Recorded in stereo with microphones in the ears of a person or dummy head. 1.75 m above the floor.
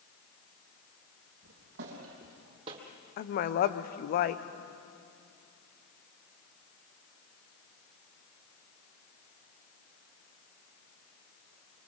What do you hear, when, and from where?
1.4 s footsteps: 55° right (ahead or behind), 3 m; by 2.8 s 30° right (ahead or behind), 2.5 m
3.2 s a woman speaking: 40° left (ahead or behind), 0.7 m